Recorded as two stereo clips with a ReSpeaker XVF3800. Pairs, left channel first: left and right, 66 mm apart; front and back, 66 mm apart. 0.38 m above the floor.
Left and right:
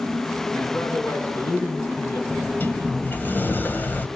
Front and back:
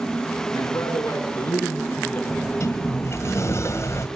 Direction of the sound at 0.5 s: 40° left.